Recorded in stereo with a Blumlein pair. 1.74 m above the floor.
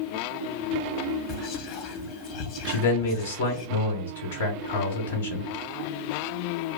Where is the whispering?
40° left, 0.7 m.